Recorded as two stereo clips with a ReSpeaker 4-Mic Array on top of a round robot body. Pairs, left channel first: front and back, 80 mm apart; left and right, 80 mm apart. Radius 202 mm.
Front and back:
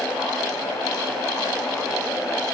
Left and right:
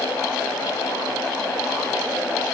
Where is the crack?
I don't hear a crack.